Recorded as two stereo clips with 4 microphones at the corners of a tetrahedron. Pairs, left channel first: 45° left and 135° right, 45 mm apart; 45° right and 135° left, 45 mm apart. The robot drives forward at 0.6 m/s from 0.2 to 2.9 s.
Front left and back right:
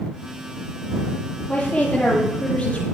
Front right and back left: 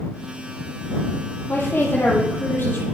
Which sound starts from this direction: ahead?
A woman speaking, at 1.5 s.